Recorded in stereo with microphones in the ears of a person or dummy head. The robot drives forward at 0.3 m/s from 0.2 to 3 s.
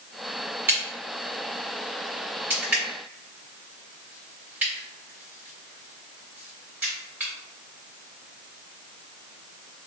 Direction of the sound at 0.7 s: 15° right (ahead or behind).